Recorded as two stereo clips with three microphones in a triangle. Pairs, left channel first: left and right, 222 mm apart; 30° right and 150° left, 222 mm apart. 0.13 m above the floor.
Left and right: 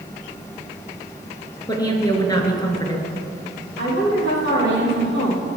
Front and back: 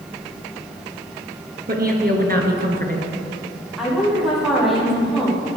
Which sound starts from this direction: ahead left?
A woman speaking, at 3.8 s.